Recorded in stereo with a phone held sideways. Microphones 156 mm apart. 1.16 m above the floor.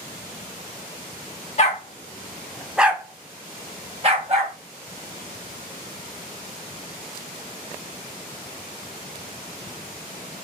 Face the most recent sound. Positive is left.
turn(degrees=-45)  # may be behind; listen again after turning